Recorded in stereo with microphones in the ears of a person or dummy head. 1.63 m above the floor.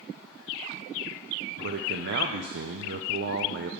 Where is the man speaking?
50° right (ahead or behind), 0.5 m.